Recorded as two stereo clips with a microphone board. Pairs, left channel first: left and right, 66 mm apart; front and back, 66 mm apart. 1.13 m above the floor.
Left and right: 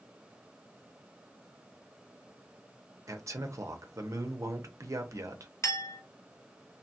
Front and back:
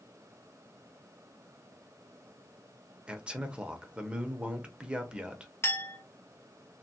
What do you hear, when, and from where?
3.1 s a man speaking: 110° right, 0.6 m
5.6 s a clink: 45° left, 1.0 m